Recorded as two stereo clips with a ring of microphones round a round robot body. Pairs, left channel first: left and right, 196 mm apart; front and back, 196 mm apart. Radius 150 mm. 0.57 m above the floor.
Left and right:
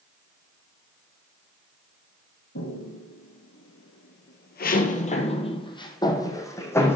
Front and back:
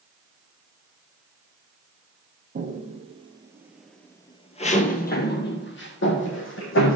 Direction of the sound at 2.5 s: 135° left.